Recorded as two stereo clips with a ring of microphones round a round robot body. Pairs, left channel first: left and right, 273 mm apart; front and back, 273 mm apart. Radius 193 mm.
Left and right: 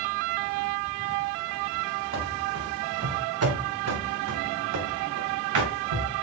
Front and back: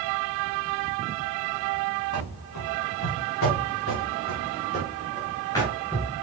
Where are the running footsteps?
45° right, 3.5 m; by 6.1 s 90° right, 3.5 m.